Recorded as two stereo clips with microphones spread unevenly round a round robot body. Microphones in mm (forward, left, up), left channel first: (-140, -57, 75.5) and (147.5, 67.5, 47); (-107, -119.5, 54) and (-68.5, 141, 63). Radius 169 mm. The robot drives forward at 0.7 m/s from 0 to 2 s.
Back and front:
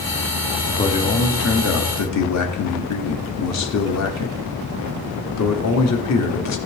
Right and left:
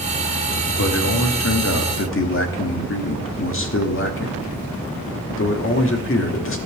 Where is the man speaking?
80° right, 1.3 m; by 6.6 s 125° right, 1.4 m.